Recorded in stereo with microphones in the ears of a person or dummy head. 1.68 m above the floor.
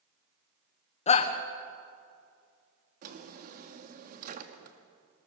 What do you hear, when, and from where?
1.1 s a shout: 40° left (ahead or behind), 1.1 m
3.0 s a drawer: 50° right (ahead or behind), 1.7 m